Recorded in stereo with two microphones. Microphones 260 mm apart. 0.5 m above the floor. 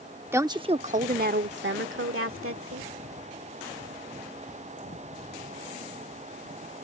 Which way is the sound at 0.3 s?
10° right (ahead or behind).